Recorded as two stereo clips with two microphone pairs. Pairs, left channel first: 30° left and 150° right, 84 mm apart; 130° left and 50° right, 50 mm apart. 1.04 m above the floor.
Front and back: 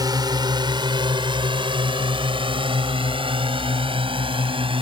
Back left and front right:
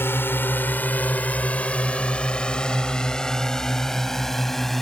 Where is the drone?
170° left; by 4.8 s 145° right.